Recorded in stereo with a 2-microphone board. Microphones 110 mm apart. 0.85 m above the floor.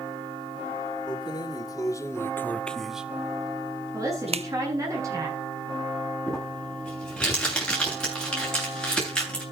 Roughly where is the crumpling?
Centre.